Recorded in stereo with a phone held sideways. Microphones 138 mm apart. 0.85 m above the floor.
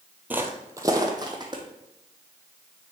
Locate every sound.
0.3 s footsteps: 15° right (ahead or behind), 0.9 m; by 1.6 s 35° right (ahead or behind), 1.8 m